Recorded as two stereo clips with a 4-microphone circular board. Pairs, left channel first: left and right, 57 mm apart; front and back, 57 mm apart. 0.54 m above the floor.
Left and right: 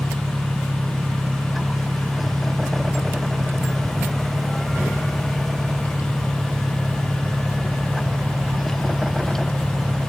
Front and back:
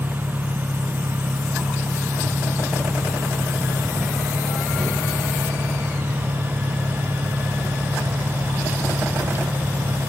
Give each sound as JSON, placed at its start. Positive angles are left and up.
{"t": 0.0, "sound": "an engine running", "azimuth_deg": -115}